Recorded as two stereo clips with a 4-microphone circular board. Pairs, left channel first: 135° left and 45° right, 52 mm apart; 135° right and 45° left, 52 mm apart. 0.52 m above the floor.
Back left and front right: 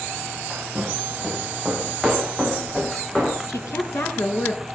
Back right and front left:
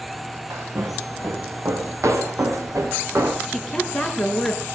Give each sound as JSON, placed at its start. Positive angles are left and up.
{"t": 0.5, "sound": "footsteps", "azimuth_deg": 35, "distance_m": 5.5}
{"t": 3.5, "sound": "a woman speaking", "azimuth_deg": 140, "distance_m": 5.5}